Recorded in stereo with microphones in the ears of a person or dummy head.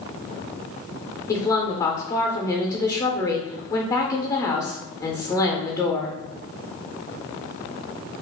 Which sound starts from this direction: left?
A woman speaking, at 1.3 s.